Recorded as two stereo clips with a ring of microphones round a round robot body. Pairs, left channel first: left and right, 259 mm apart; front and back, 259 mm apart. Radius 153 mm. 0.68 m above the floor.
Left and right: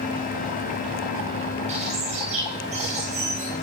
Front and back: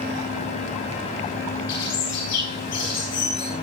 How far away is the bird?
About 7.5 m.